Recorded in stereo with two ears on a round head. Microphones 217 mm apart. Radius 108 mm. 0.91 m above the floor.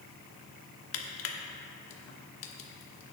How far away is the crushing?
About 1.2 m.